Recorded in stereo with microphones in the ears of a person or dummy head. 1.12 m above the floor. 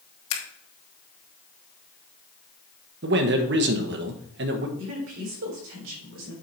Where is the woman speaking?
60° right (ahead or behind), 3.5 m.